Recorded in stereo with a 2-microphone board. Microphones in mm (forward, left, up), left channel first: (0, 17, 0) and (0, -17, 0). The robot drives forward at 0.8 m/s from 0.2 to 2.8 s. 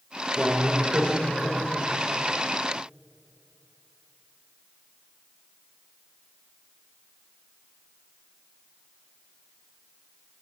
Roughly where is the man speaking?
Centre.